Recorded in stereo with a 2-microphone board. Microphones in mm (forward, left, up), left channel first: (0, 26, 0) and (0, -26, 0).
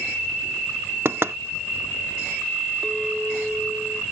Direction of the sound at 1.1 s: 55° right (ahead or behind).